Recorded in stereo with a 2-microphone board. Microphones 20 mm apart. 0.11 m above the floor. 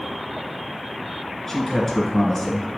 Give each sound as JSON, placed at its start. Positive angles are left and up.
{"t": 1.5, "sound": "a man speaking", "side_deg": 20, "distance_m": 1.8}